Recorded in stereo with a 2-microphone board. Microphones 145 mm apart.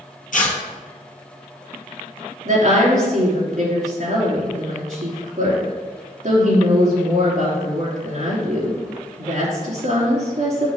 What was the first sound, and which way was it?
Tearing paper, 65° left (ahead or behind).